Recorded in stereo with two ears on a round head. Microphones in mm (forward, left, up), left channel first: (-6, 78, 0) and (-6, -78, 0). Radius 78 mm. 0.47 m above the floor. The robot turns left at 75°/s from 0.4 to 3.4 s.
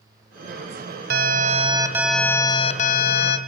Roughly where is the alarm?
Right.